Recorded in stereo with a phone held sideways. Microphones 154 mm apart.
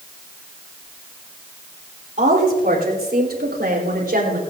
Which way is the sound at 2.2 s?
55° right (ahead or behind).